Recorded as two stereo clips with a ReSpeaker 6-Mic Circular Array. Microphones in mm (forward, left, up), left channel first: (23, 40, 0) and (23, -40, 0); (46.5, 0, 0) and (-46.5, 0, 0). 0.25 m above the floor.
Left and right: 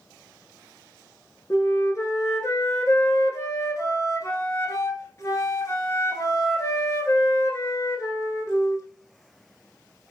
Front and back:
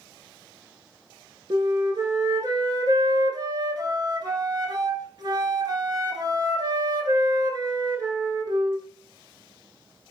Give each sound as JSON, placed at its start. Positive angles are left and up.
{"t": 1.5, "sound": "a flute", "azimuth_deg": 140, "distance_m": 0.8}